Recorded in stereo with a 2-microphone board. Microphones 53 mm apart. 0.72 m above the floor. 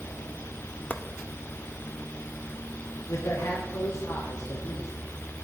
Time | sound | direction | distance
0.9 | chopping | 30° left (ahead or behind) | 0.7 m
3.1 | a man speaking | 70° left (ahead or behind) | 1.8 m